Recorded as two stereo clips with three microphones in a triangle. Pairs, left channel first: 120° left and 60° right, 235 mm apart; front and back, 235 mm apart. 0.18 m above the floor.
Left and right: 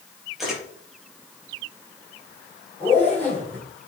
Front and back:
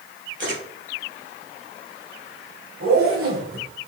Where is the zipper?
160° right, 5 m.